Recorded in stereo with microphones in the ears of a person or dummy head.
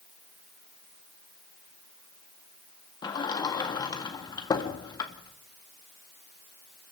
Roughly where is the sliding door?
Left.